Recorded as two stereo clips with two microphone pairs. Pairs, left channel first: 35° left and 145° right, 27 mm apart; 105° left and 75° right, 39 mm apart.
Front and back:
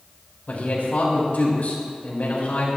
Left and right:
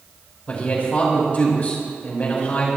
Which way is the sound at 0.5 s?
55° left.